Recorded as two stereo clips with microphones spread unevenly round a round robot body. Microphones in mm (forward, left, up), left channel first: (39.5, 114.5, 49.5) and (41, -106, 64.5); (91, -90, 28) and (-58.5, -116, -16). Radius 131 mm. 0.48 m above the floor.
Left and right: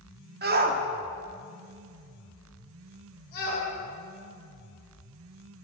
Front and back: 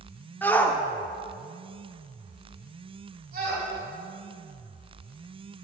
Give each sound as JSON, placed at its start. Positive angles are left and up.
{"t": 0.4, "sound": "a shout", "azimuth_deg": -85, "distance_m": 0.9}